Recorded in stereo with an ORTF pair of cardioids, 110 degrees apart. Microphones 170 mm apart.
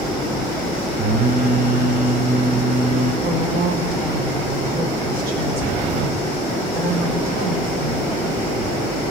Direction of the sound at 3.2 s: 60° right.